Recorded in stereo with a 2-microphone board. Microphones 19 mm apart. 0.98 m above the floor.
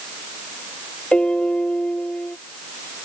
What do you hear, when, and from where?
1.1 s a piano: 75° left (ahead or behind)